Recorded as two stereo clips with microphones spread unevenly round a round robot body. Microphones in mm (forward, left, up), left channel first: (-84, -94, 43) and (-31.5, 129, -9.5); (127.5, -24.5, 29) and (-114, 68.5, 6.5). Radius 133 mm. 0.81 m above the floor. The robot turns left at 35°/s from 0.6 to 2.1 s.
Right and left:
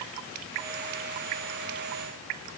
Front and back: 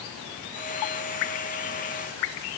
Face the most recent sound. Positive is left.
No sound to turn to.